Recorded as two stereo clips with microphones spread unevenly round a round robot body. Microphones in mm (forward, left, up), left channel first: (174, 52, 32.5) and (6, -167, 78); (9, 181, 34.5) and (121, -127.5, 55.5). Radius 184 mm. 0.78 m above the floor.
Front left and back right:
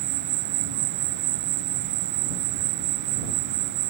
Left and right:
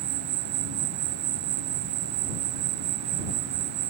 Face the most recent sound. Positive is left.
turn(degrees=-120)